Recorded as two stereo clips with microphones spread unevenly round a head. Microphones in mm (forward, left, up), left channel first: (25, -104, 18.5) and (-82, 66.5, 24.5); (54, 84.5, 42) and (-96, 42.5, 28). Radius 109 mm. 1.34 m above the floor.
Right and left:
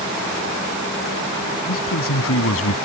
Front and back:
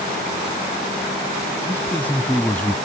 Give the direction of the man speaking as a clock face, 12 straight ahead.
2 o'clock.